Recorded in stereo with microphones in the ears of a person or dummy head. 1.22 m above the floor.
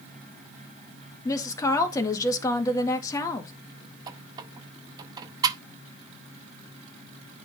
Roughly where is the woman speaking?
Left.